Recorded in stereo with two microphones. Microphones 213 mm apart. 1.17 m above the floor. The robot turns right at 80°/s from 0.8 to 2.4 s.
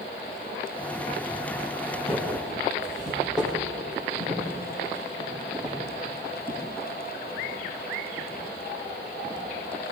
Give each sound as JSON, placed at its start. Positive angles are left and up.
{"t": 1.9, "sound": "footsteps", "side_deg": 40, "distance_m": 5.0}